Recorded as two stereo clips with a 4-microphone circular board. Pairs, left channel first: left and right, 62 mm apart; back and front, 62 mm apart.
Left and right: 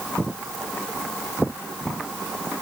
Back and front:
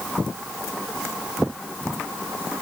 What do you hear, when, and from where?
Only background noise.